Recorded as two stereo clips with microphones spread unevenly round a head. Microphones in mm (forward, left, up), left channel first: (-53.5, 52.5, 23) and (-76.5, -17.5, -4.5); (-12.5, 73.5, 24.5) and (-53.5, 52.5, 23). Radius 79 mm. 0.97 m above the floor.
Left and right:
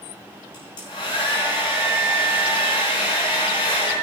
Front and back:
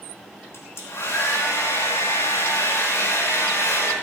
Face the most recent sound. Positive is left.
turn(degrees=50)